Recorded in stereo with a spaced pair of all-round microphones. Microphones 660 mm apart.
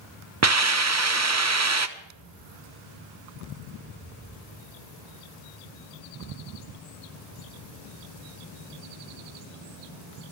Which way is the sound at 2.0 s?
35° left (ahead or behind).